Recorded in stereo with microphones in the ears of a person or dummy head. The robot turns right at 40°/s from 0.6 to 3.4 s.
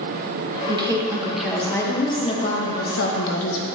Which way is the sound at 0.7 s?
30° right.